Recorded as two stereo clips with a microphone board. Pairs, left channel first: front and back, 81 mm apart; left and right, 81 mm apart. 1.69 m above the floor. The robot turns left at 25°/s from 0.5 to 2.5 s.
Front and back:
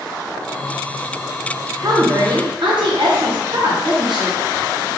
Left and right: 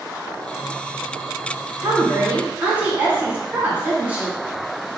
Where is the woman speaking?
145° right, 1.7 m; by 4.4 s 160° right, 1.7 m.